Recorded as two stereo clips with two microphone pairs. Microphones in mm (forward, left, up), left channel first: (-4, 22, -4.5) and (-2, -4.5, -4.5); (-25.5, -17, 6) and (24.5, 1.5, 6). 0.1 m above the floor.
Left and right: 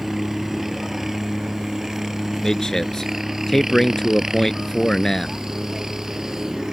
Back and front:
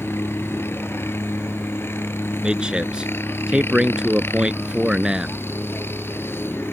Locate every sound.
0.0 s a helicopter: 160° right; by 6.7 s 150° right
2.4 s a man speaking: 60° left